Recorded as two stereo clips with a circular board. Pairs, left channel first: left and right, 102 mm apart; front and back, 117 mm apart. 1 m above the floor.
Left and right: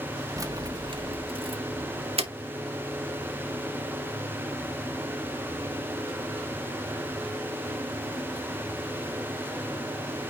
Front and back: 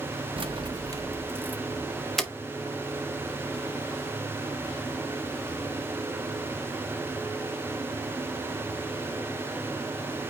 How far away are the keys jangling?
About 1.0 m.